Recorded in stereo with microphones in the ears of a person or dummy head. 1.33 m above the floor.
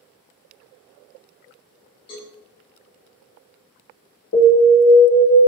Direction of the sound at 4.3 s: 55° left (ahead or behind).